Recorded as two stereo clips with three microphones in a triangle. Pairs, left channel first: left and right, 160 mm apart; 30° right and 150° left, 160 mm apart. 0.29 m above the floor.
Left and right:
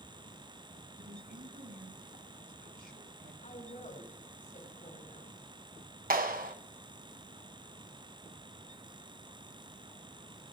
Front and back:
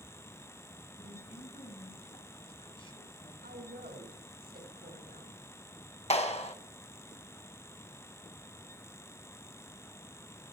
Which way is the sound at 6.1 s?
75° right.